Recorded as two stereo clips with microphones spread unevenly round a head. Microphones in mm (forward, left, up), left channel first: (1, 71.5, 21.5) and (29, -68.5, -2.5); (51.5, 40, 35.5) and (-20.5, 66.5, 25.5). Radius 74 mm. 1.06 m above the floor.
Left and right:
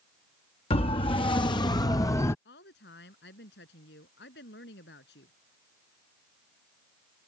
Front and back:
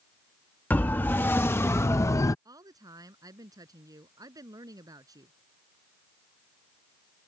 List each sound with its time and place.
0.7 s a siren: 50° left; by 2.4 s 25° left
2.5 s a woman speaking: 120° left